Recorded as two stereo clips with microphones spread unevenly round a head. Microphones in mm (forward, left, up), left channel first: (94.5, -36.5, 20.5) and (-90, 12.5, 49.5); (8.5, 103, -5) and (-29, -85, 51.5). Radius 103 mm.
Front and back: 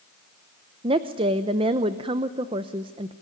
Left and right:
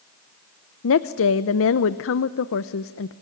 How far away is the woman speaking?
About 0.7 m.